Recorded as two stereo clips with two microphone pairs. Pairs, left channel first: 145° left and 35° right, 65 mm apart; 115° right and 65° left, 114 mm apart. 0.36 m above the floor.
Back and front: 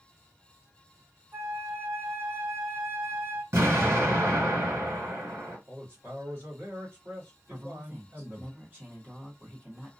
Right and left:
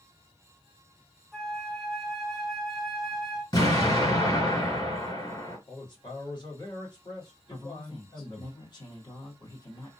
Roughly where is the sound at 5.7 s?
Right.